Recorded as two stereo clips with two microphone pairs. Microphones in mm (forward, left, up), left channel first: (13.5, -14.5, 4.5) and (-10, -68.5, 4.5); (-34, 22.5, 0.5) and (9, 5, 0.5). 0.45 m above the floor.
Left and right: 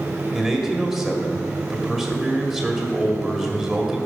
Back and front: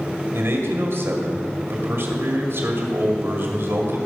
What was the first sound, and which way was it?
A man speaking, 30° right.